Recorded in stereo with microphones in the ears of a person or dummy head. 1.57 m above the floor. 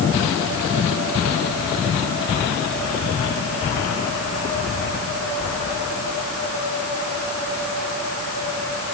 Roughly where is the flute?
I don't hear a flute.